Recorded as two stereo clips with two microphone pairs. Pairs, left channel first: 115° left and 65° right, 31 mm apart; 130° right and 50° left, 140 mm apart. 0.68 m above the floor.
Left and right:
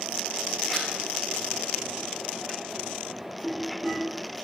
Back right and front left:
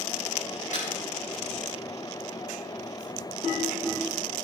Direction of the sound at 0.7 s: 150° right.